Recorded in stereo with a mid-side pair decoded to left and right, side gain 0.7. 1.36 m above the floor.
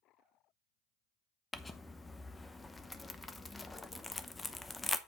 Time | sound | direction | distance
1.5 | crumpling | 15° left | 0.8 m